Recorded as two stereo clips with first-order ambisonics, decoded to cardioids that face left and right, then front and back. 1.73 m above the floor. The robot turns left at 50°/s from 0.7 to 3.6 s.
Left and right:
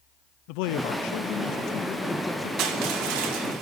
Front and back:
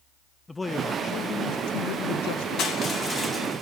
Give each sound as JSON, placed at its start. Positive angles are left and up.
{"t": 0.5, "sound": "a man speaking", "azimuth_deg": 80, "distance_m": 0.6}
{"t": 2.6, "sound": "crushing", "azimuth_deg": -50, "distance_m": 3.0}